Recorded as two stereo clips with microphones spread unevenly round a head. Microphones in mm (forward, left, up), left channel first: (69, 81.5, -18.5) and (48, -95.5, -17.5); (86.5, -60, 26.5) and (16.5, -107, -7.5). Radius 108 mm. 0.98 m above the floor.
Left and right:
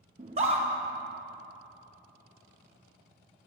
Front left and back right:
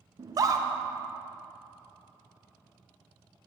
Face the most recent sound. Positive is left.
turn(degrees=-155)